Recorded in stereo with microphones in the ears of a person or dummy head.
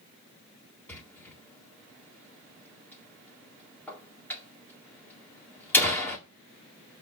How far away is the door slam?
About 1.9 m.